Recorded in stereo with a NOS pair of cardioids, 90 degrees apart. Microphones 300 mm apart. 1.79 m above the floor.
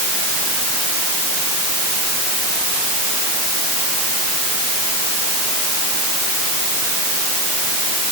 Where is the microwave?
I don't hear a microwave.